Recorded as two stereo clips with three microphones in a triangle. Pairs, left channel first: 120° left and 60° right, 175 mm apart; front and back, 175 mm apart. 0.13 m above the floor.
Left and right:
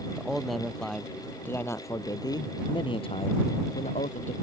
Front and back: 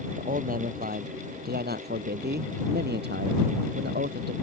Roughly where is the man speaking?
Behind right.